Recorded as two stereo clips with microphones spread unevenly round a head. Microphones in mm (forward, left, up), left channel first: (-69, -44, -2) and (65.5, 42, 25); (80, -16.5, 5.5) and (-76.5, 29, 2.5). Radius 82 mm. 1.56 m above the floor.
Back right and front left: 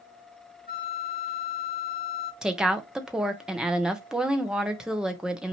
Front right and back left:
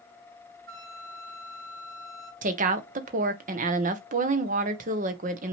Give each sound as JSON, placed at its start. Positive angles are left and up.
{"t": 0.7, "sound": "a flute", "azimuth_deg": 175, "distance_m": 1.4}
{"t": 2.4, "sound": "a woman speaking", "azimuth_deg": 120, "distance_m": 0.9}